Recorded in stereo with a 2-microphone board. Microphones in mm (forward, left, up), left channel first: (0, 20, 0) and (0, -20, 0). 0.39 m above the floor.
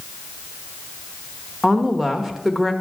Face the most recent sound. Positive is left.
turn(degrees=-10)  # may be behind; listen again after turning